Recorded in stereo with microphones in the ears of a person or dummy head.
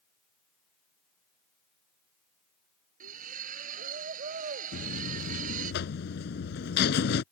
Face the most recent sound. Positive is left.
turn(degrees=50)  # may be behind; listen again after turning